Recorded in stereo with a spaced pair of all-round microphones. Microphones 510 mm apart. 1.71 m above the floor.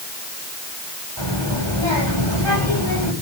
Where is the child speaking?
55° right (ahead or behind), 7 m.